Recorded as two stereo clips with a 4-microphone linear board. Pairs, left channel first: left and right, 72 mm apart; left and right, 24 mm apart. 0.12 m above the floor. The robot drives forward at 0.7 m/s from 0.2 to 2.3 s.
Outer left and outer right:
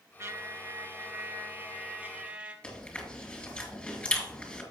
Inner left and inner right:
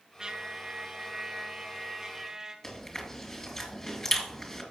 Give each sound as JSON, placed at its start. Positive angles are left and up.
{"t": 0.2, "sound": "a trumpet", "side_deg": -35, "distance_m": 0.8}
{"t": 2.6, "sound": "chewing", "side_deg": 20, "distance_m": 2.0}